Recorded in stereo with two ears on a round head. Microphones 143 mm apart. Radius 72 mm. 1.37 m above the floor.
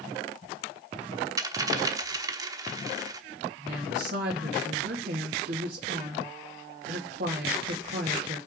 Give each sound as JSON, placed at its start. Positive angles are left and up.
{"t": 1.4, "sound": "a dropped coin", "side_deg": -20, "distance_m": 1.0}
{"t": 3.6, "sound": "a woman speaking", "side_deg": -60, "distance_m": 2.5}